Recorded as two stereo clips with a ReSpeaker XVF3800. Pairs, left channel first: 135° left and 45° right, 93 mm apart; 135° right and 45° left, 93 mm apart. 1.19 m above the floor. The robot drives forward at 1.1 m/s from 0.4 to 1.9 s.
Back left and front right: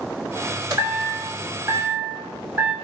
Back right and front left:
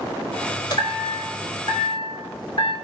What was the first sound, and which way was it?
A chime, 90° right.